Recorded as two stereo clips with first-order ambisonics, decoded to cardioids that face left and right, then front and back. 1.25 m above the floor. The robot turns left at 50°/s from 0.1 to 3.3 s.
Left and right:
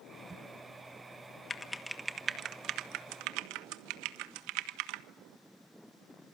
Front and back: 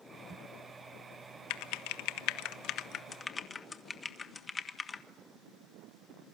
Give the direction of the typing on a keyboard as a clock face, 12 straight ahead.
11 o'clock.